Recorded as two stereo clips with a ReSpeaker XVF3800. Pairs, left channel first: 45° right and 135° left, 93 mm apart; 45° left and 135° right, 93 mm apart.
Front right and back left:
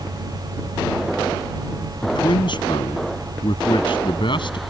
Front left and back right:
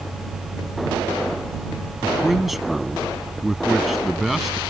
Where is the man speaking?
45° right.